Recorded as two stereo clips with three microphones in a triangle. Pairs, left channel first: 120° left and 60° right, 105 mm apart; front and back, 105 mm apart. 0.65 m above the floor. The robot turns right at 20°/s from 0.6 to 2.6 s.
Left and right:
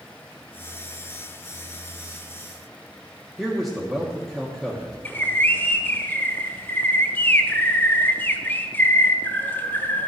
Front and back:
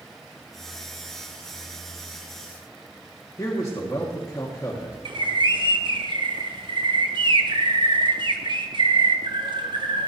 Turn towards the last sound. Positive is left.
turn(degrees=-170)